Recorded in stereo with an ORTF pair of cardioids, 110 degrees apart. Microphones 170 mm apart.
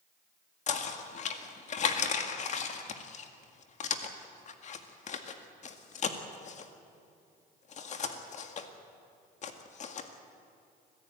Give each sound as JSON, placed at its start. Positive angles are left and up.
{"t": 0.7, "sound": "knocking", "azimuth_deg": 45, "distance_m": 1.9}